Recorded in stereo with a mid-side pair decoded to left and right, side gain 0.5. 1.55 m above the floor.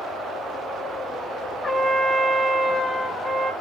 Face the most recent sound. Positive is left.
turn(degrees=20)